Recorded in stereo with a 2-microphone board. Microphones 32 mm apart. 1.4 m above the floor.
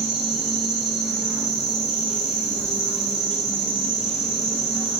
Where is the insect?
Centre (ahead or behind), 1.0 m.